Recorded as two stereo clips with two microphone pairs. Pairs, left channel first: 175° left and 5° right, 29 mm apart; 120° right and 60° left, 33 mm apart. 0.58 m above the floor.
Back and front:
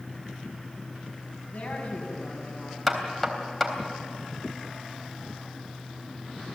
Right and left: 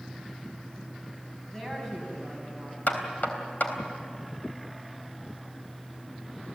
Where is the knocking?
100° right, 3.5 m.